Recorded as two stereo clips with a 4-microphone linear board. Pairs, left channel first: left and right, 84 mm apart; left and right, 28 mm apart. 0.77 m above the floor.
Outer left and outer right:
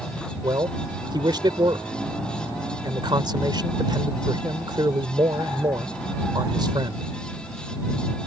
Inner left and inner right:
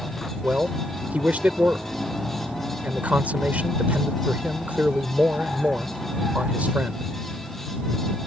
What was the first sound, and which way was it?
A man speaking, 65° right (ahead or behind).